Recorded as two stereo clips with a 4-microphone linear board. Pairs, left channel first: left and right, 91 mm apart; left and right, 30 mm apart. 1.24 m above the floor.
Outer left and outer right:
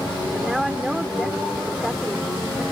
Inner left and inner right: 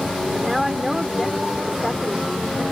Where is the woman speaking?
5° right (ahead or behind).